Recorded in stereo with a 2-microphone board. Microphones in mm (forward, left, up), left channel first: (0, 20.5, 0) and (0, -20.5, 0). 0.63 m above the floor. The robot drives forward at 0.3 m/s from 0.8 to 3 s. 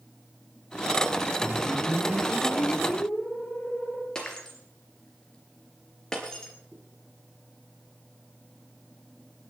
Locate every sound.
1.4 s a whoosh: 45° left (ahead or behind), 4.5 m
4.2 s breaking glass: 15° left (ahead or behind), 3.5 m
6.7 s a zipper: centre (ahead or behind), 10 m